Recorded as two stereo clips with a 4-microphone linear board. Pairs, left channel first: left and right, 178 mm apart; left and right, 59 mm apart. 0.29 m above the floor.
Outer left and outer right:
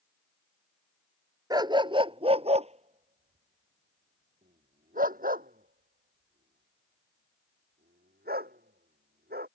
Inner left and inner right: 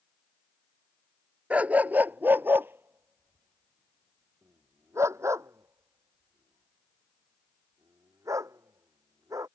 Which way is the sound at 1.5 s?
20° right (ahead or behind).